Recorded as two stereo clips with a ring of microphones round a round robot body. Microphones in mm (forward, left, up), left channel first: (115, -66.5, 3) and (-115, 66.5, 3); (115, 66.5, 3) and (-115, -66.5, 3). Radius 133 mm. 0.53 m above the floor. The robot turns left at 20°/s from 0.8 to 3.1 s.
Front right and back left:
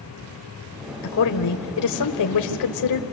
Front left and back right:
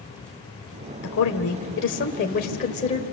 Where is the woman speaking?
Straight ahead, 1.8 m; by 3.0 s 40° right, 1.8 m.